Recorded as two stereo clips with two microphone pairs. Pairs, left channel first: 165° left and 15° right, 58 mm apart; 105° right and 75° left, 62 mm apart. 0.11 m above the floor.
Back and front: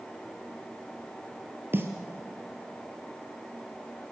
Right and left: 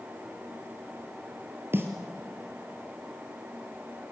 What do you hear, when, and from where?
1.7 s a snare drum: 30° left, 1.9 m